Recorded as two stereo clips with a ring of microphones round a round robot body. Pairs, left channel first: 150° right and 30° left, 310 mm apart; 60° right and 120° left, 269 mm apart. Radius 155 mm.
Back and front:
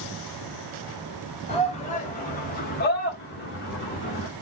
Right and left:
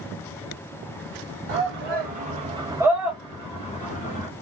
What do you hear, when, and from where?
1.5 s a shout: 145° left, 1.3 m; by 4.3 s 100° right, 1.2 m